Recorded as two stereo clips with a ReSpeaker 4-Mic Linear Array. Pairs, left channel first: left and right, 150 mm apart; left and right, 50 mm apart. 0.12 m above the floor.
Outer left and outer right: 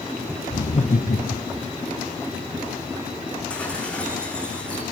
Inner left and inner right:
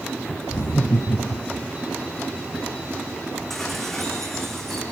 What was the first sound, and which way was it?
Laughter, 50° left (ahead or behind).